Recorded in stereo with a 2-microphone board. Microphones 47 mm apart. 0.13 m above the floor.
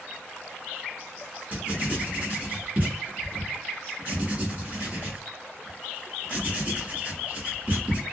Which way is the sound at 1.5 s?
35° right (ahead or behind).